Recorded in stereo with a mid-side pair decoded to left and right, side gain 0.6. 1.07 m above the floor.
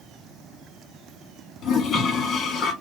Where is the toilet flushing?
45° left, 1.6 m.